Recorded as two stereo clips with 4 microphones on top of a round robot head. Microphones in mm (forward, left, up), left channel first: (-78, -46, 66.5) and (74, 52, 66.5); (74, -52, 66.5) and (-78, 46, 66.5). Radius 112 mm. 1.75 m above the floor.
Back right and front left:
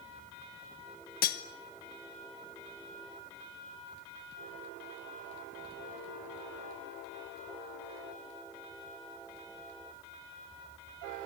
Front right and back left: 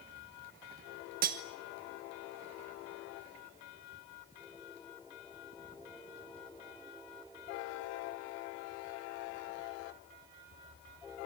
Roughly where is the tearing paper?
I don't hear tearing paper.